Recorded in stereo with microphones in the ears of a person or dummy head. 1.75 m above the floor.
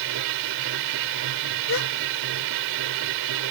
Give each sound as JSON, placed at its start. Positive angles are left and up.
{"t": 0.0, "sound": "a machine running", "side_deg": -75}
{"t": 1.7, "sound": "a gasp", "side_deg": 70}